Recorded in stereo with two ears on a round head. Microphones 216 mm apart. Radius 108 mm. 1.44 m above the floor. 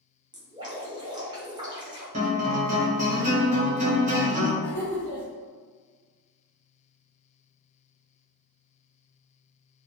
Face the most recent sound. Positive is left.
turn(degrees=-65)  # may be behind; listen again after turning